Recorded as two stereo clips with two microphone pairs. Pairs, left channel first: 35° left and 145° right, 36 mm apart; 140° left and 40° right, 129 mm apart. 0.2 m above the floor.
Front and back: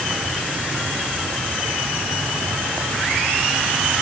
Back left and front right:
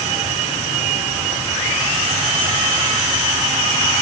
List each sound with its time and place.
Only background noise.